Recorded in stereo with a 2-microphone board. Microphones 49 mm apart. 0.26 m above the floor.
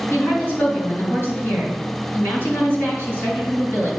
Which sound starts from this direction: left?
A woman speaking, at 0.1 s.